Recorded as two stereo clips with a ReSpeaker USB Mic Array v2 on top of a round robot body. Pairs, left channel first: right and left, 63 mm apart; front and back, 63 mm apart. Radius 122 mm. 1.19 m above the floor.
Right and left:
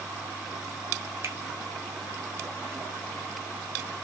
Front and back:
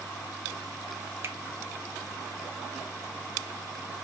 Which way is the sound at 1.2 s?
130° left.